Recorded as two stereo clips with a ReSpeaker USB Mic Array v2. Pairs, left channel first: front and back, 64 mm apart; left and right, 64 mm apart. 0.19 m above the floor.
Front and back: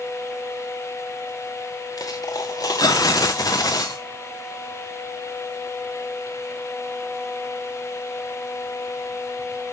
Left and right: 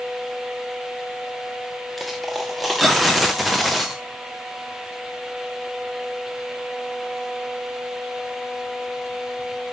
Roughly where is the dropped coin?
Ahead.